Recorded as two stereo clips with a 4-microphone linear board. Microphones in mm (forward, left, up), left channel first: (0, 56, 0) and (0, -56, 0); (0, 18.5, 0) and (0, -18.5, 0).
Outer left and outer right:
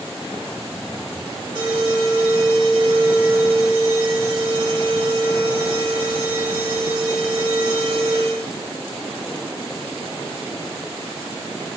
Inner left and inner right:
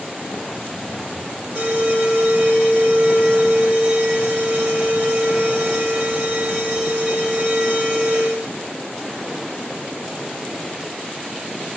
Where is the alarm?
50° right (ahead or behind), 3.5 m.